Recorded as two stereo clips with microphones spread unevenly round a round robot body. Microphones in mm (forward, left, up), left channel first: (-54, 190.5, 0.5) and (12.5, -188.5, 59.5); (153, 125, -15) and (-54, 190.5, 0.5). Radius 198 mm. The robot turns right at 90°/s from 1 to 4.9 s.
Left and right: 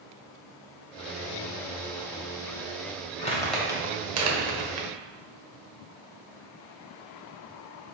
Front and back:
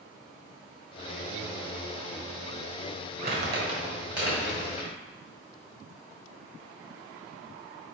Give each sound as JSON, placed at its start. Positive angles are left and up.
{"t": 3.2, "sound": "crumpling", "azimuth_deg": 150, "distance_m": 1.7}